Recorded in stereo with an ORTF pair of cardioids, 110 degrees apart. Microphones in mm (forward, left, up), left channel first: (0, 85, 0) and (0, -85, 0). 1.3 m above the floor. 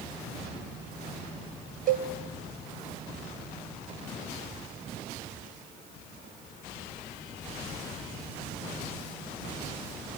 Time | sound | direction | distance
1.9 | a cowbell | 55° right | 0.9 m